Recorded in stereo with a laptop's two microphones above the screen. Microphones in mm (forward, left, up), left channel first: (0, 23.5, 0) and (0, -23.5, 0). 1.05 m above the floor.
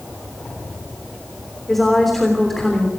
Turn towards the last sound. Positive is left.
turn(degrees=5)  # may be behind; listen again after turning